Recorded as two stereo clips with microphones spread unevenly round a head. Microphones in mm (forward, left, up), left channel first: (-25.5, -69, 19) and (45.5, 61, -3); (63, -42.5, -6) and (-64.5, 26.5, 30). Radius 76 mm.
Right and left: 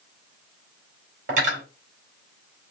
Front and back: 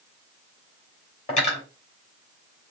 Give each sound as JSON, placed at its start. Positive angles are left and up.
{"t": 1.3, "sound": "cutlery clinking", "azimuth_deg": 20, "distance_m": 2.0}